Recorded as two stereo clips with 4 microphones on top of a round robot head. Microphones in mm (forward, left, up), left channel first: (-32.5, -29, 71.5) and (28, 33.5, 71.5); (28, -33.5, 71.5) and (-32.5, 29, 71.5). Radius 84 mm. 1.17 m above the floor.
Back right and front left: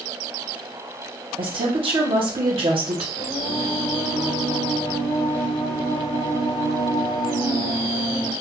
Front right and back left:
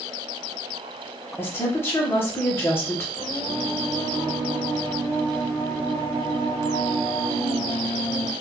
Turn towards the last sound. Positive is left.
turn(degrees=-105)